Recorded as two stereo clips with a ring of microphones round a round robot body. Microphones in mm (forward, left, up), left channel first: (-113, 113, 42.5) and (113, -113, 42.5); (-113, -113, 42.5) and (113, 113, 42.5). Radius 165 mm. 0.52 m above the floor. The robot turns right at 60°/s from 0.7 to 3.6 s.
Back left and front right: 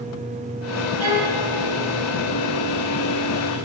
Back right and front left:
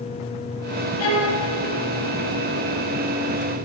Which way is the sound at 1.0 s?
95° right.